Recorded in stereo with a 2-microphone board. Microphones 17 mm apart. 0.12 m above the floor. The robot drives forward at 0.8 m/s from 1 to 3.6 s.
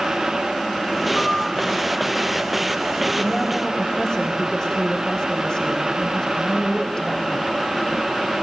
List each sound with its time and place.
1.1 s a piano: 50° left (ahead or behind), 6 m
3.2 s a woman speaking: 35° left (ahead or behind), 6 m; by 7.7 s 40° left (ahead or behind), 5.5 m